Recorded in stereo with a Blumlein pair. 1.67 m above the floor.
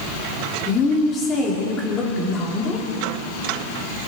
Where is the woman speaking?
25° left, 3.5 m.